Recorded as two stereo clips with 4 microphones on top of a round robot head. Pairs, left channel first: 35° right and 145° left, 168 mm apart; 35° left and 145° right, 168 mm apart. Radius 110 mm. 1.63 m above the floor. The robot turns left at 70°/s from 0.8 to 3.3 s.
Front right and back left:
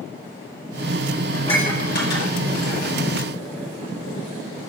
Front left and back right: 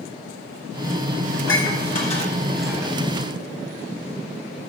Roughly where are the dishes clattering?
Ahead left.